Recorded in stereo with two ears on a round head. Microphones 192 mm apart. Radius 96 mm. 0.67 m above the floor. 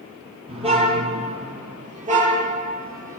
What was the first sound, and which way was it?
A car horn, 25° right (ahead or behind).